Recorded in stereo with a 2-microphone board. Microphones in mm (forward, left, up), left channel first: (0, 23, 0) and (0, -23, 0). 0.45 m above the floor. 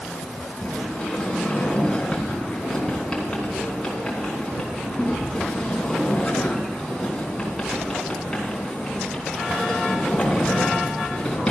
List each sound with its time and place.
0.6 s a sliding door: 15° left (ahead or behind), 3.5 m